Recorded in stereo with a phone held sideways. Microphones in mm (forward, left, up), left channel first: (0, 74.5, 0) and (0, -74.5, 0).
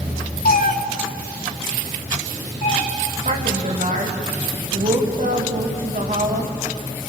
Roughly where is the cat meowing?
Left.